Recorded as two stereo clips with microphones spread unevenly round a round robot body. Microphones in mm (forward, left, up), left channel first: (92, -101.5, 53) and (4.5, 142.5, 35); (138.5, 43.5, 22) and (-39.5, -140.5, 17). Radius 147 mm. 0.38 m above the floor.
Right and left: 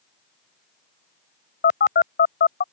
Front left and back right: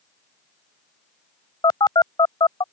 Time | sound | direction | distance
1.6 | a phone buzzing | 25° right | ?